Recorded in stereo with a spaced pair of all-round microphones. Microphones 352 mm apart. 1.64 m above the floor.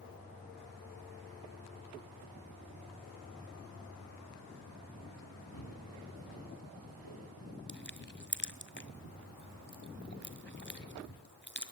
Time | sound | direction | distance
5.5 | footsteps | 75° left (ahead or behind) | 8 m
7.7 | crushing | 30° left (ahead or behind) | 1.8 m